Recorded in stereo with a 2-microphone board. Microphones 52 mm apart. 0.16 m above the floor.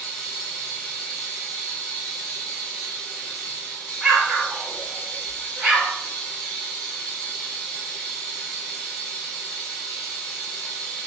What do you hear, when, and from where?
0.0 s running water: 15° left (ahead or behind), 1.6 m
4.0 s an explosion: 5° right (ahead or behind), 1.3 m